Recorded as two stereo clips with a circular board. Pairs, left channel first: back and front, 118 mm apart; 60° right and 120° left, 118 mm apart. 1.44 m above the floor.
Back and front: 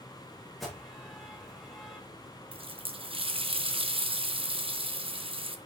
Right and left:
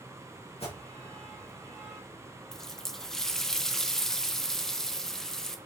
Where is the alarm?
90° right, 4 m.